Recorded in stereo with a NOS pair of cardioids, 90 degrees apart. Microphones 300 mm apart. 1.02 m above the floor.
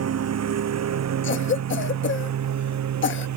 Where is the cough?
40° left.